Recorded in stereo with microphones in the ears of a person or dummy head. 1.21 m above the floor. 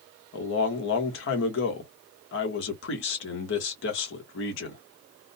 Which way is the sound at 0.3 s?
65° left (ahead or behind).